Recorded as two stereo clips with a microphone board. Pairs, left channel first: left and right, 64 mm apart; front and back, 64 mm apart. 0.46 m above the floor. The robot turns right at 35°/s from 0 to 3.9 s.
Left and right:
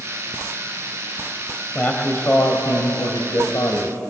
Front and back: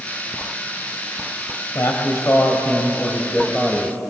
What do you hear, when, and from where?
1.8 s a man speaking: 25° left, 2 m; by 4.0 s 100° left, 2 m